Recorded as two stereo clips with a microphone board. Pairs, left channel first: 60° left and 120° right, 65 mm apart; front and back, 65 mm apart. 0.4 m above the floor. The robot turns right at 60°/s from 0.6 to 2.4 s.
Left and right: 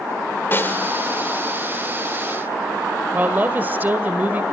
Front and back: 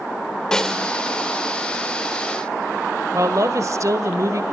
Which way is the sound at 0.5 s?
75° left.